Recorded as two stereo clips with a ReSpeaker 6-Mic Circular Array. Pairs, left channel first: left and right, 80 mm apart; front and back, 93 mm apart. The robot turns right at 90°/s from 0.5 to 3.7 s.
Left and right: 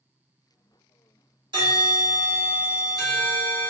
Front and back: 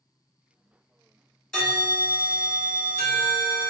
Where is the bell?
85° right, 1.3 m; by 3.7 s 110° left, 1.3 m.